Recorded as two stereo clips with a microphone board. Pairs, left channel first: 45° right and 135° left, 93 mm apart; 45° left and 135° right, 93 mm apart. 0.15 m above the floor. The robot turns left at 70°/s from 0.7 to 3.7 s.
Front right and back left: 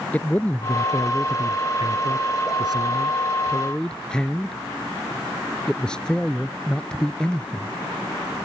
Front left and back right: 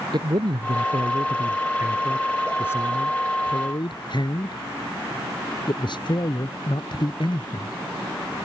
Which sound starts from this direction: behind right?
A man speaking, at 0.1 s.